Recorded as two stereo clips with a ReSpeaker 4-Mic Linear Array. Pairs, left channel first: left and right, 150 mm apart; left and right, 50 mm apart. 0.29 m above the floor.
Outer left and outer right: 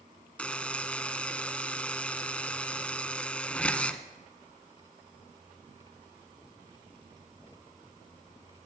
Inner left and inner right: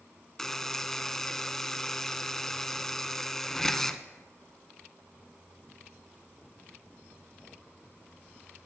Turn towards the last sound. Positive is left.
turn(degrees=10)  # may be behind; listen again after turning